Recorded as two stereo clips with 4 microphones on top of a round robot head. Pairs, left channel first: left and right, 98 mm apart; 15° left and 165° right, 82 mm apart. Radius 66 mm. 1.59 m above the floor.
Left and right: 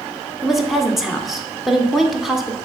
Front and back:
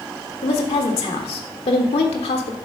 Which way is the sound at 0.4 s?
Straight ahead.